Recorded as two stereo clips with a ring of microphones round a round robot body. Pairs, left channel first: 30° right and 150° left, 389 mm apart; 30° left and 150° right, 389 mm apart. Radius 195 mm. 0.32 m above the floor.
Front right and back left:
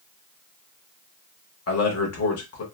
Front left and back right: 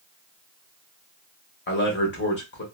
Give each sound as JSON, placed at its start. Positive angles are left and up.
{"t": 1.7, "sound": "a man speaking", "azimuth_deg": -15, "distance_m": 1.0}